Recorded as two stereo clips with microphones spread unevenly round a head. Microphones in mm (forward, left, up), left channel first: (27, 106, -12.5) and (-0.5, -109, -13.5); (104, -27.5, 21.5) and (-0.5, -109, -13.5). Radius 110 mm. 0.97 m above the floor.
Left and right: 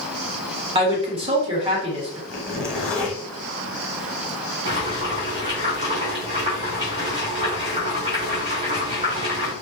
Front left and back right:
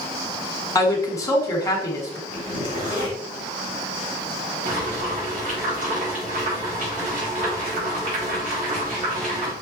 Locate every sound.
0.8 s a woman speaking: 30° right, 1.6 m
2.3 s a zipper: 170° left, 1.2 m
4.7 s boiling: 160° right, 2.5 m